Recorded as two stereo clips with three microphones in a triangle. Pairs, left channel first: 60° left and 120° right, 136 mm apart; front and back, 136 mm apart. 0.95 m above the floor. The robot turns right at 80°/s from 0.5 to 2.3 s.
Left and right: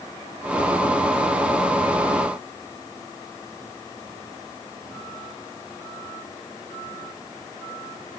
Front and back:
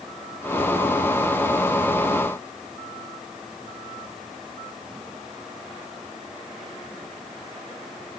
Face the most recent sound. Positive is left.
No sound to turn to.